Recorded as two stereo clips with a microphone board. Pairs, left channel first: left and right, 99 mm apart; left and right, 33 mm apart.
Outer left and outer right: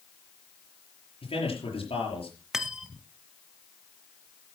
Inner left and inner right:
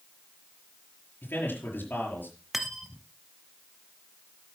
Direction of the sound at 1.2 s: 75° left (ahead or behind).